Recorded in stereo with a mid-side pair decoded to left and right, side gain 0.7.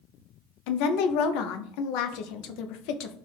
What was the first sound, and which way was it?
A woman speaking, 70° left.